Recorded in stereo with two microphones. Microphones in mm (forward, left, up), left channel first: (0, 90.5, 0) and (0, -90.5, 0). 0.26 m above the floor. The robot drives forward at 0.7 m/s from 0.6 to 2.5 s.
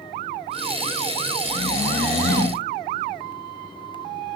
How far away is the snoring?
About 3 m.